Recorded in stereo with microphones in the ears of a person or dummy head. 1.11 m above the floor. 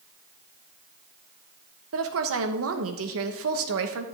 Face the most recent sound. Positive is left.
turn(degrees=-70)  # may be behind; listen again after turning